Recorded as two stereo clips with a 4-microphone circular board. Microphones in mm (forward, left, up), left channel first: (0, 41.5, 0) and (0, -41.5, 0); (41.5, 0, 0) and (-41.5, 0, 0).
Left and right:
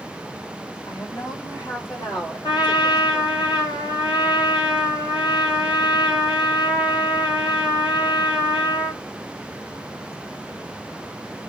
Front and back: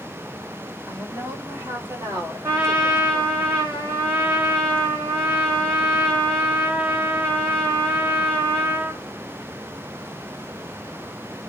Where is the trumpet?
120° left, 3.5 m.